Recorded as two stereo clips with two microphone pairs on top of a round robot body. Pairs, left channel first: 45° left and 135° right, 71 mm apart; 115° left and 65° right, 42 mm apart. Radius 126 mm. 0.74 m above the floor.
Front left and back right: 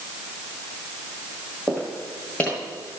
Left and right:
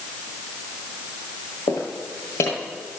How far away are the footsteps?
About 1.2 m.